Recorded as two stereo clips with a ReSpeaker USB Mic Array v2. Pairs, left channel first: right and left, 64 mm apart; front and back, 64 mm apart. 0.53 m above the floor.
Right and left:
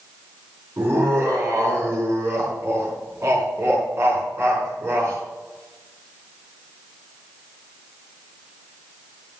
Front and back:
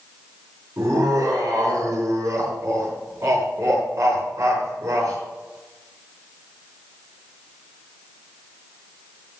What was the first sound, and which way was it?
Laughter, 140° left.